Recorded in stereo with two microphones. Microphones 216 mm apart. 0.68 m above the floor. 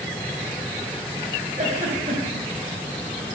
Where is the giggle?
35° right (ahead or behind), 2.5 m.